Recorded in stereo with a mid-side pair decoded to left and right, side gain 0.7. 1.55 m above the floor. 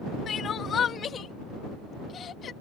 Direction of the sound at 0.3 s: 35° left.